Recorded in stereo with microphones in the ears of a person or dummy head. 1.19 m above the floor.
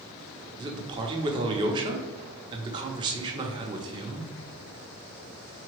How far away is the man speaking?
About 0.6 m.